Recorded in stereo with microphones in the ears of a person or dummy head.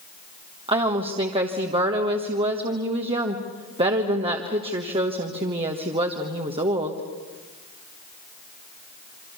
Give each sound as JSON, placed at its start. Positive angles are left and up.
{"t": 0.7, "sound": "a woman speaking", "side_deg": -40, "distance_m": 1.3}